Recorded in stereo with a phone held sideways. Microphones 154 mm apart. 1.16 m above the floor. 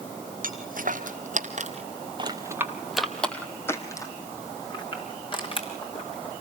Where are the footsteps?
60° right (ahead or behind), 2.5 m; by 6.3 s 35° left (ahead or behind), 5 m.